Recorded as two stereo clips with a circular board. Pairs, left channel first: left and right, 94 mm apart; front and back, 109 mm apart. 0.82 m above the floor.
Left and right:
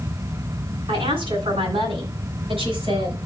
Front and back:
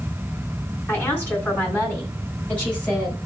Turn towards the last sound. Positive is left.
turn(degrees=-80)